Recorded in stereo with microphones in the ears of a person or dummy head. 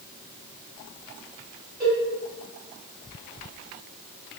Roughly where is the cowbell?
Centre.